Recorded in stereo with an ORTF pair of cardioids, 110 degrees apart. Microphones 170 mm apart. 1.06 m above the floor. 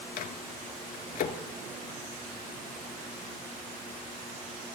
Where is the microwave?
55° left, 1.8 m.